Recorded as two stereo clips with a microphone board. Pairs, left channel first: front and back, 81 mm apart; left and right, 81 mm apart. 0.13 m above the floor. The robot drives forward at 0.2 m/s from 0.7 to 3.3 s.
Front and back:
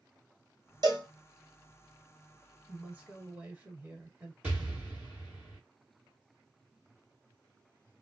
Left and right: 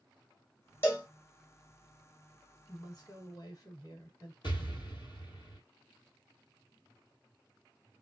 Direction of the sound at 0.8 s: 155° left.